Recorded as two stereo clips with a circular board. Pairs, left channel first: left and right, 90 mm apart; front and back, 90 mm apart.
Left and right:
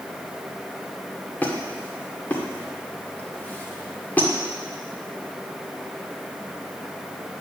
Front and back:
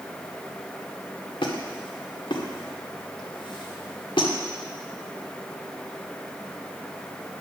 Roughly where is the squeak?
Ahead.